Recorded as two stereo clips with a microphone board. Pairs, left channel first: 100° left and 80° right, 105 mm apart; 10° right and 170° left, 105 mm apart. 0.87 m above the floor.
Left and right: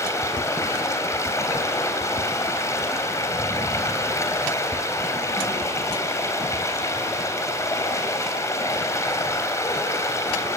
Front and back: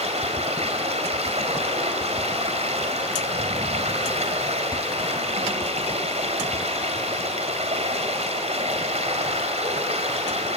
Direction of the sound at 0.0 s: 165° left.